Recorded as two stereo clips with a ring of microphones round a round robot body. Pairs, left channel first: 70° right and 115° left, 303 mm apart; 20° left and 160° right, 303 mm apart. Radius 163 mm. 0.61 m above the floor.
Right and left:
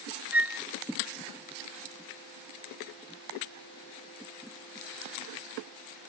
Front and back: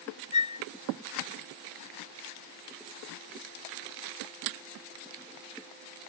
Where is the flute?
35° left.